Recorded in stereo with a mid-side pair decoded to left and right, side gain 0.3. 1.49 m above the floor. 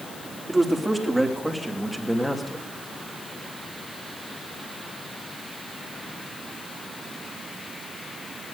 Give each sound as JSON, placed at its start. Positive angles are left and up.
{"t": 0.5, "sound": "a man speaking", "azimuth_deg": -15, "distance_m": 3.5}